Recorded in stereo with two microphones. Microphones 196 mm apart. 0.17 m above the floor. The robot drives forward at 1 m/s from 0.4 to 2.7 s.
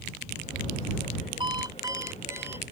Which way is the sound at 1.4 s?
25° right (ahead or behind).